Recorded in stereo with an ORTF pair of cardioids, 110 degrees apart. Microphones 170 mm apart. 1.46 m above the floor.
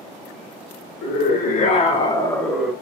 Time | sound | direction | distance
1.0 | a scream | 65° left | 1.4 m